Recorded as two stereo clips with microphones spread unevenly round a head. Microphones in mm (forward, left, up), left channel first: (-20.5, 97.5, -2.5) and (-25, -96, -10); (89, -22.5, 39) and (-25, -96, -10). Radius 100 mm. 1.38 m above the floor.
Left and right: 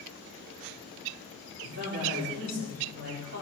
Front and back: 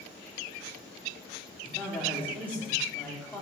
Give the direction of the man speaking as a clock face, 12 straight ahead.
2 o'clock.